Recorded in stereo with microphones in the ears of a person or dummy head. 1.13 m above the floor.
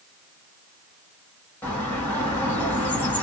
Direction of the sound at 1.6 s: 10° left (ahead or behind).